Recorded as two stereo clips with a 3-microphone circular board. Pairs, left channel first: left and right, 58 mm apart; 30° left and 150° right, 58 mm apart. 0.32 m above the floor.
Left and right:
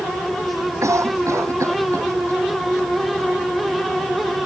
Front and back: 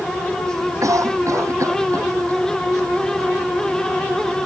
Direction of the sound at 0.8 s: 125° right.